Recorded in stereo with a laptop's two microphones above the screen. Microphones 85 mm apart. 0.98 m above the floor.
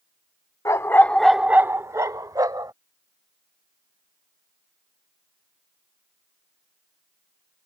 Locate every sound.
0.7 s a dog barking: 40° left (ahead or behind); by 2.7 s 55° right (ahead or behind)